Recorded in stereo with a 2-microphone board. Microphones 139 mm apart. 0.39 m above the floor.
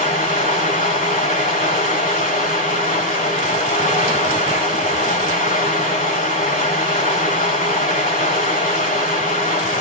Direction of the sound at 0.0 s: 85° left.